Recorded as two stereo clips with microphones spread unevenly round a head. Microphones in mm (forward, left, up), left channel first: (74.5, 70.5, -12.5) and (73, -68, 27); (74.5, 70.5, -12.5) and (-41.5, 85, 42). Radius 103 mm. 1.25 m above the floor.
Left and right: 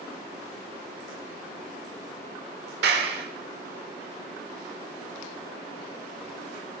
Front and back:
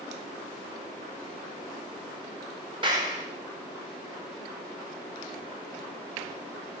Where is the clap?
120° right, 4.5 m.